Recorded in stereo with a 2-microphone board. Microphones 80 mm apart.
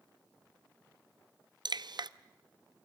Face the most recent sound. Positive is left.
turn(degrees=-65)  # may be behind; listen again after turning